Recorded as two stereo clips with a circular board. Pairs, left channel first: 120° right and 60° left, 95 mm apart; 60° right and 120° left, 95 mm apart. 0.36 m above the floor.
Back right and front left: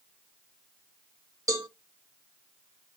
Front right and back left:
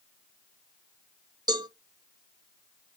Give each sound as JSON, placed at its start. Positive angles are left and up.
{"t": 1.5, "sound": "a cowbell", "azimuth_deg": 105, "distance_m": 1.1}